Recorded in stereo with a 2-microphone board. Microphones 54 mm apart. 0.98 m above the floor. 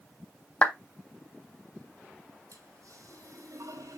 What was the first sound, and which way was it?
A clap, 30° left (ahead or behind).